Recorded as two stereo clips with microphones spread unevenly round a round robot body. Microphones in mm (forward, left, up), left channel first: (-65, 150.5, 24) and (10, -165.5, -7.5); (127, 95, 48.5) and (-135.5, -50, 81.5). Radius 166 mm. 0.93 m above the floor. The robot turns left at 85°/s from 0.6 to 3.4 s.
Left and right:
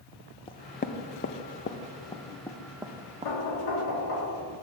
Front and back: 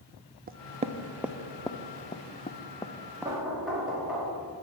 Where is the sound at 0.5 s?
170° left, 0.6 m; by 3.3 s 60° right, 0.6 m.